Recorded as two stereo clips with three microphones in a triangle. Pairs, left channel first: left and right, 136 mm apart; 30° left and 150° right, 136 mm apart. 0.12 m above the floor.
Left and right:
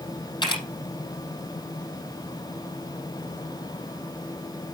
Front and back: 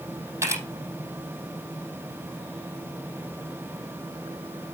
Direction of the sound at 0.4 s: 145° left.